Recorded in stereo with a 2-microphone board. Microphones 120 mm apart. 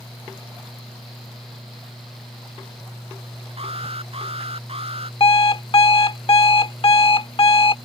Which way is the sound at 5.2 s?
55° left (ahead or behind).